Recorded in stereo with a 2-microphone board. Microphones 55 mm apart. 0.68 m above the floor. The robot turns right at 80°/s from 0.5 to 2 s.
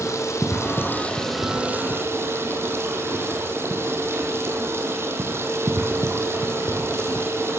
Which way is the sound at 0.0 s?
110° left.